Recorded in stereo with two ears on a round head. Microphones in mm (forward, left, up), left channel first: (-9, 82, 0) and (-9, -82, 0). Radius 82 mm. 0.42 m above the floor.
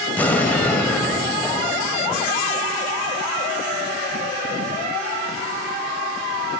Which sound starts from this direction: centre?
An explosion, at 0.2 s.